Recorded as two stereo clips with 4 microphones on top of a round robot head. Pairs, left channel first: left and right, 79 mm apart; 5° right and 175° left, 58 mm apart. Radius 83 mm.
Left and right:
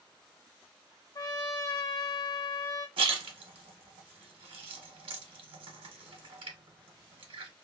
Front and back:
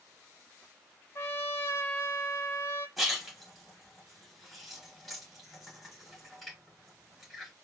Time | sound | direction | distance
1.1 | a trumpet | 45° left | 0.6 m
3.0 | a splash | 95° right | 1.0 m